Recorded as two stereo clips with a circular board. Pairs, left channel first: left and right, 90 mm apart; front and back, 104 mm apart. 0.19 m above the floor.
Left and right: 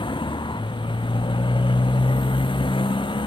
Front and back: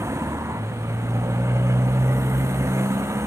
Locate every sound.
0.0 s a motorcycle: 115° left